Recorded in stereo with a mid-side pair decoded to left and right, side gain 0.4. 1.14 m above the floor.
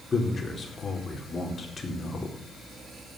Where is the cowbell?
I don't hear a cowbell.